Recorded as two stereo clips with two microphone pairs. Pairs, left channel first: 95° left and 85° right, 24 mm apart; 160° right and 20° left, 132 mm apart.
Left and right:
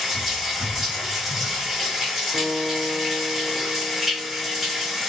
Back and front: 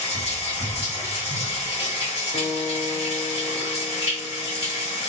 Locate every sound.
0.0 s running water: 160° right, 1.8 m
2.3 s a guitar: 100° right, 0.9 m